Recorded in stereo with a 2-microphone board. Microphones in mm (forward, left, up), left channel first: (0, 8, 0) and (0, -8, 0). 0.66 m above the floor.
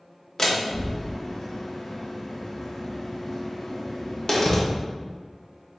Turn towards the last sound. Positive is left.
turn(degrees=35)  # may be behind; listen again after turning